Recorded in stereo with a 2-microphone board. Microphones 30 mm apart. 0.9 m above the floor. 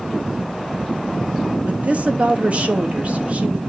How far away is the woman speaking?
About 1.3 m.